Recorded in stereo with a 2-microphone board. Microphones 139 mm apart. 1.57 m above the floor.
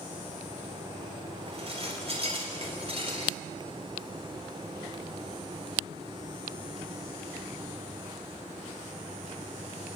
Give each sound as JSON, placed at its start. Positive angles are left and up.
{"t": 1.5, "sound": "dishes clattering", "side_deg": -45, "distance_m": 4.0}